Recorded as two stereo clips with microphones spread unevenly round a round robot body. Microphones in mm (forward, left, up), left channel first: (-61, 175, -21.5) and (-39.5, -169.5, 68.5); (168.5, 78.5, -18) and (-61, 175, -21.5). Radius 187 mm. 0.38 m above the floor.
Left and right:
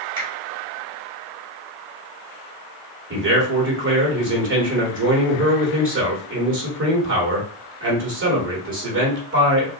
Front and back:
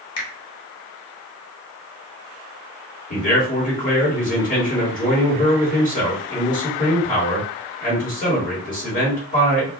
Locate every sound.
0.2 s a finger snap: straight ahead, 1.1 m
3.1 s a man speaking: 35° right, 1.3 m